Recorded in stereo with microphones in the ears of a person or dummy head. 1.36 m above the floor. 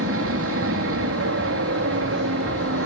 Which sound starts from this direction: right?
An aircraft, at 0.0 s.